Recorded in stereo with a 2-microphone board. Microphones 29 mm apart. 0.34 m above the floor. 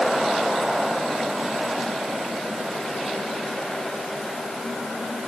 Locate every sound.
Only background noise.